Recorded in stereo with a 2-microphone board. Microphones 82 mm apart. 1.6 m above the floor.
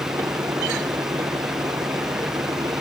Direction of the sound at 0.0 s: 50° right (ahead or behind).